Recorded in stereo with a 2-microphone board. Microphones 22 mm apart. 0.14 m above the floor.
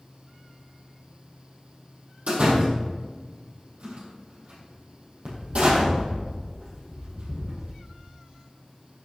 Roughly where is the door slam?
Right.